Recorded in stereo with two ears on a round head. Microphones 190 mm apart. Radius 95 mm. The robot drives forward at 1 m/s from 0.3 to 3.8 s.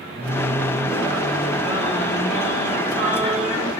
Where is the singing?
30° right (ahead or behind), 8 m; by 3.7 s 20° right (ahead or behind), 11 m.